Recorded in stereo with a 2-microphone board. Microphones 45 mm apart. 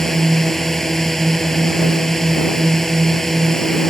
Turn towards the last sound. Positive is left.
turn(degrees=10)  # may be behind; listen again after turning